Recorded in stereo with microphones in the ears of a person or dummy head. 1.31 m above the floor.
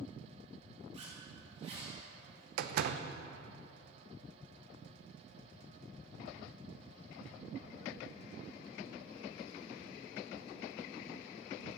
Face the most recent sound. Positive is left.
turn(degrees=-60)  # may be behind; listen again after turning